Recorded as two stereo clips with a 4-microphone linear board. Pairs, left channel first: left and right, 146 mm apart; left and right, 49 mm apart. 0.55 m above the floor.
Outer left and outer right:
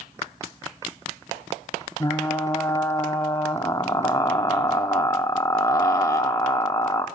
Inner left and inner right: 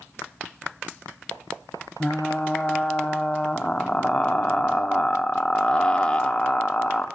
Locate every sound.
2.0 s frying: 20° left (ahead or behind), 1.0 m